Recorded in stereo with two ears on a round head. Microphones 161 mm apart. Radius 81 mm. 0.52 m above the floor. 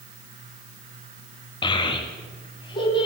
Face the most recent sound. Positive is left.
turn(degrees=30)  # may be behind; listen again after turning